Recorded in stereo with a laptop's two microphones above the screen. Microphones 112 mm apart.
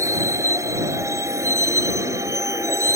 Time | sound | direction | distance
0.0 | a vehicle | 30° right (ahead or behind) | ?